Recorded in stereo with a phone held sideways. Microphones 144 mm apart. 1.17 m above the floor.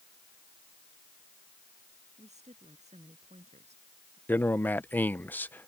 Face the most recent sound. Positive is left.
turn(degrees=10)  # may be behind; listen again after turning